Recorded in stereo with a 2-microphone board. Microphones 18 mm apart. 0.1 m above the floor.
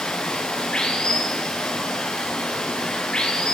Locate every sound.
0.0 s running water: 60° left (ahead or behind), 4.5 m